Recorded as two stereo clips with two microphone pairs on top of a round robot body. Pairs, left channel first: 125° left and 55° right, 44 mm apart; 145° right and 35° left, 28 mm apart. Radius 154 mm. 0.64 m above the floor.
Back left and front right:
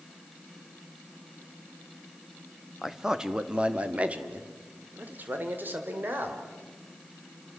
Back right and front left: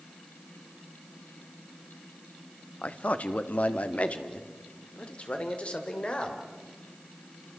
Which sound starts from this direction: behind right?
A man speaking, at 2.8 s.